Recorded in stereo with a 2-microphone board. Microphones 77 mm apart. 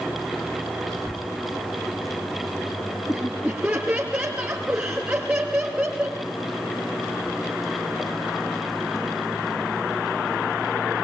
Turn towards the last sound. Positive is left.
turn(degrees=-15)  # may be behind; listen again after turning